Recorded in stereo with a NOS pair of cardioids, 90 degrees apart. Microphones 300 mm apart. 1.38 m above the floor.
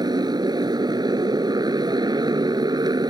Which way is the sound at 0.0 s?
15° right.